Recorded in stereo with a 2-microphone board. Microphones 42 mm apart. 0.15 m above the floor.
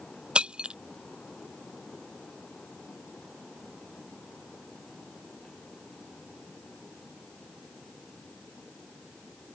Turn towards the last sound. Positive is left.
turn(degrees=-25)  # may be behind; listen again after turning